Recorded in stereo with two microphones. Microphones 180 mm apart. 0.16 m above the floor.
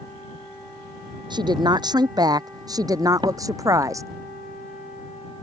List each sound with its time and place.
1.3 s a woman speaking: 25° right (ahead or behind); by 4.1 s 15° right (ahead or behind)
3.2 s a door slam: 25° right (ahead or behind)